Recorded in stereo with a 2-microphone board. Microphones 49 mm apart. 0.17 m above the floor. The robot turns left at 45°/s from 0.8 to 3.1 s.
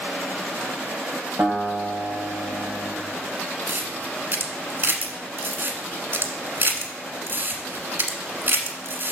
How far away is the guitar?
About 5 m.